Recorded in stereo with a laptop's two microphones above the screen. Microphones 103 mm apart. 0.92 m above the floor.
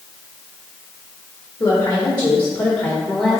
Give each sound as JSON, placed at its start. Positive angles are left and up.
{"t": 1.6, "sound": "a woman speaking", "side_deg": 50, "distance_m": 1.7}